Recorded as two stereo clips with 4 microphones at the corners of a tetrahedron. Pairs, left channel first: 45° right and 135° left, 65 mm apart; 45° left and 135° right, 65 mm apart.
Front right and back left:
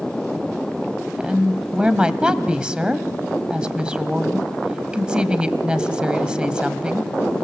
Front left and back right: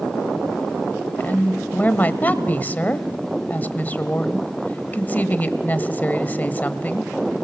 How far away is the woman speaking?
About 1.0 m.